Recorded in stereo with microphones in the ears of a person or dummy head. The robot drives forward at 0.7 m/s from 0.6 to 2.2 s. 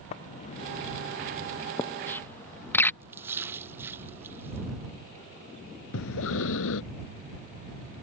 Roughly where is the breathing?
Left.